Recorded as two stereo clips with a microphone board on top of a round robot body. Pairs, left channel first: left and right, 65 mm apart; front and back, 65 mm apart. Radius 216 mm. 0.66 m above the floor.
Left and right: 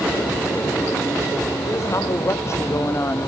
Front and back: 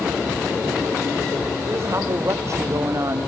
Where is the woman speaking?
130° left, 3.5 m; by 3.3 s 140° left, 1.9 m.